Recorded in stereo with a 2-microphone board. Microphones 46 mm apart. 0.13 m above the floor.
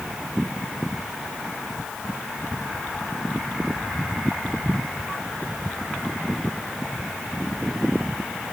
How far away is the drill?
No drill in this recording.